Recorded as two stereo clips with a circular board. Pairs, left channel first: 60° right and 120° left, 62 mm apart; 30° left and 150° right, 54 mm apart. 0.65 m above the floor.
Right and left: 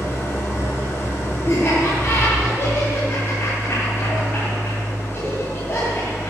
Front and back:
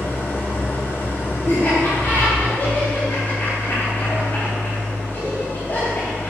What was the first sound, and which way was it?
An engine running, 15° right.